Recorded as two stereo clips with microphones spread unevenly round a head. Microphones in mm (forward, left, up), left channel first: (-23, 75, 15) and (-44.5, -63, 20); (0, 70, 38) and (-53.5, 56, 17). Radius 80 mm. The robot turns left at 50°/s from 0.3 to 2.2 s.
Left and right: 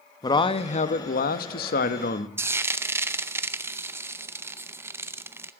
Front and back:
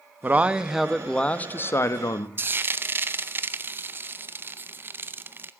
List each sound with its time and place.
0.2 s a man speaking: 140° left, 1.0 m; by 2.3 s 45° left, 1.0 m
2.4 s frying: 170° right, 0.7 m